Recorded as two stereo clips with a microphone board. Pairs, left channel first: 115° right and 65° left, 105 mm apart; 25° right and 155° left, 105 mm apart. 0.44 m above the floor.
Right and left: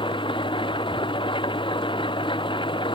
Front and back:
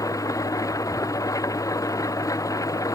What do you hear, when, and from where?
0.0 s an engine running: 80° right